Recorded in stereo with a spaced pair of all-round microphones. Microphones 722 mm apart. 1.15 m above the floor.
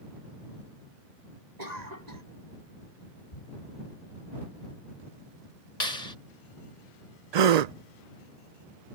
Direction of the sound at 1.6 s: 70° right (ahead or behind).